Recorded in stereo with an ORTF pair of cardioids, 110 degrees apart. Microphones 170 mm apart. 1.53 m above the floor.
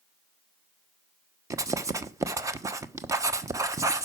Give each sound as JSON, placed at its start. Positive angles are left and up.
{"t": 1.5, "sound": "writing", "azimuth_deg": -20, "distance_m": 1.0}